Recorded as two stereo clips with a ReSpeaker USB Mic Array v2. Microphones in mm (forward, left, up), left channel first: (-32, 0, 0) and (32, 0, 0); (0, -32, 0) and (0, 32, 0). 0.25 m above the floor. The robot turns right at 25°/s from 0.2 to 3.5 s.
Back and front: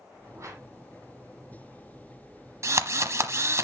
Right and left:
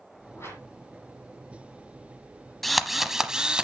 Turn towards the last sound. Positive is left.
turn(degrees=20)